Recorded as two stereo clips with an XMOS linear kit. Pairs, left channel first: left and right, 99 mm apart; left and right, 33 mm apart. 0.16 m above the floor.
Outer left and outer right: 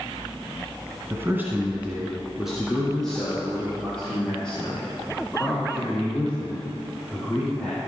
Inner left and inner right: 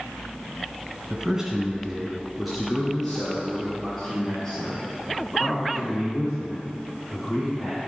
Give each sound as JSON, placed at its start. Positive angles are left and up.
{"t": 1.1, "sound": "a man speaking", "side_deg": -25, "distance_m": 1.3}